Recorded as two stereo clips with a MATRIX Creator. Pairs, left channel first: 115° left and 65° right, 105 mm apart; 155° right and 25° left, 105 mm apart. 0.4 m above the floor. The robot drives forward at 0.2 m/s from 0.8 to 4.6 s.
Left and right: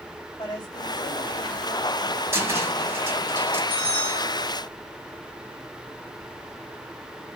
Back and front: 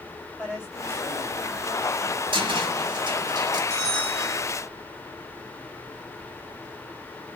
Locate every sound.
0.4 s a woman speaking: 100° left, 1.5 m; by 2.2 s 115° left, 1.5 m
2.3 s a cupboard door: 5° right, 0.9 m
3.7 s a bell: 125° left, 2.0 m; by 4.5 s 130° left, 2 m